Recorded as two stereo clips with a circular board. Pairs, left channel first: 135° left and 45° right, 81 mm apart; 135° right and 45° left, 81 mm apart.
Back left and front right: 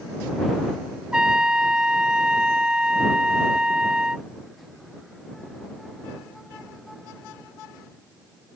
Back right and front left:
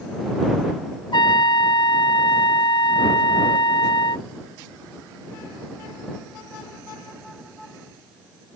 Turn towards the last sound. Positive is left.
turn(degrees=-125)